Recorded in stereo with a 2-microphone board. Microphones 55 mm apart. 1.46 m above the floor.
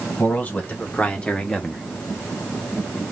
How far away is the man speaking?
About 1.2 m.